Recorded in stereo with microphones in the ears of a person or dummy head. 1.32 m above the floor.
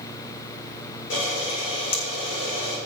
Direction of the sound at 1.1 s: 75° left (ahead or behind).